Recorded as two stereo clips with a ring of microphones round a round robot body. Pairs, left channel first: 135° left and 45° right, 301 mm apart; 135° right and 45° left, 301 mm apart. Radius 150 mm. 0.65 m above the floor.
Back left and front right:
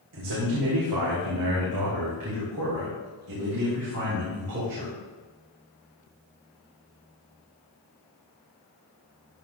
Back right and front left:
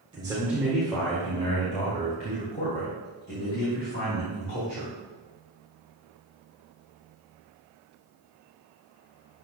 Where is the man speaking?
30° right, 1.9 m; by 4.9 s 90° right, 5 m.